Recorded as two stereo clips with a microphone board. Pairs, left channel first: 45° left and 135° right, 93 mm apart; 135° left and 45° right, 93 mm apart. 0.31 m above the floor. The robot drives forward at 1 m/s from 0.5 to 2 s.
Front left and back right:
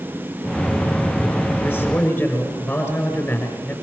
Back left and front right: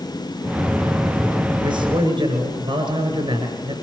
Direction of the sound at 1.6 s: 30° right.